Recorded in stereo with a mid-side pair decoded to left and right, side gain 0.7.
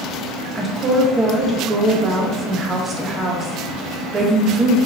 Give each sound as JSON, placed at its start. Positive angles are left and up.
{"t": 0.6, "sound": "a woman speaking", "azimuth_deg": -25, "distance_m": 0.7}